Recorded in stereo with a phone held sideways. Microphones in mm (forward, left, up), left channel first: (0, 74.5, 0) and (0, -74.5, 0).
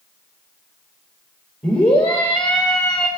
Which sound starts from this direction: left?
A scream, at 1.6 s.